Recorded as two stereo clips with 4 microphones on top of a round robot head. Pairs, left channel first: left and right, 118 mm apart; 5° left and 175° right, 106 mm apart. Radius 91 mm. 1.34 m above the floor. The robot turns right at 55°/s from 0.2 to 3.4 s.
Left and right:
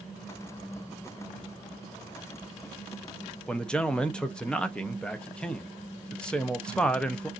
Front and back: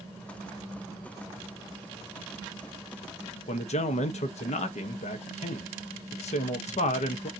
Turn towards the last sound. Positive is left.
turn(degrees=10)